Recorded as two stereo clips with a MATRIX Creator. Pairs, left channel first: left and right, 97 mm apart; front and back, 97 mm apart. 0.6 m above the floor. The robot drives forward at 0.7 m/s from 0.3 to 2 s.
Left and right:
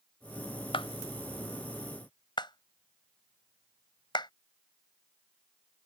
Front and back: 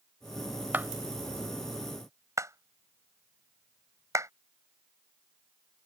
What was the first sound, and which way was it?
A clap, 110° left.